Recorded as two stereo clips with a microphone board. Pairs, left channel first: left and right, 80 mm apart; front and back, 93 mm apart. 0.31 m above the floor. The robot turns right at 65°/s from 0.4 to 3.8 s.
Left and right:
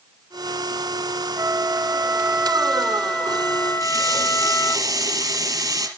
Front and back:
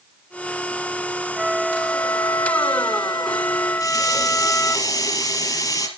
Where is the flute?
100° right, 0.9 m; by 4.8 s 60° left, 0.9 m.